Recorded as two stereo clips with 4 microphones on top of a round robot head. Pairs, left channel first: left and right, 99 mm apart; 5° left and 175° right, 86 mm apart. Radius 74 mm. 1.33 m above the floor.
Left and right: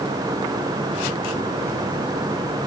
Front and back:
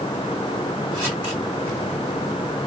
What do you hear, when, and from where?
Only background noise.